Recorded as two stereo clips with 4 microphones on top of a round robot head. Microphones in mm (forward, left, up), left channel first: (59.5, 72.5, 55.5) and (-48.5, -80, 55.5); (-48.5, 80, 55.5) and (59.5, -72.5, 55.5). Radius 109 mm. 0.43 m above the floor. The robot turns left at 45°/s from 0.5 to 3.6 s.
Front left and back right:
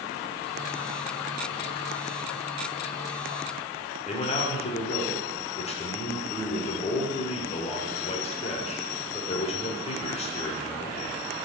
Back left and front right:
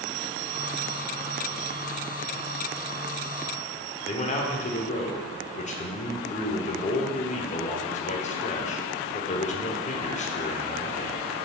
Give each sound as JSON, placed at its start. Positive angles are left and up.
{"t": 4.0, "sound": "a man speaking", "azimuth_deg": 95, "distance_m": 1.1}